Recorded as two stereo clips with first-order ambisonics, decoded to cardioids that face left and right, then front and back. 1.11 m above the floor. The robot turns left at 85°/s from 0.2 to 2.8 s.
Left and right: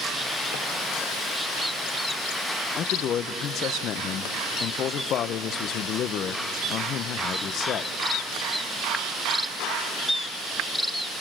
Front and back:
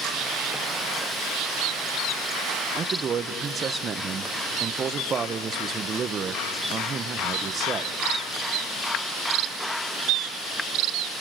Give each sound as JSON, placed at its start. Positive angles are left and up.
{"t": 2.8, "sound": "a man speaking", "azimuth_deg": 130, "distance_m": 0.7}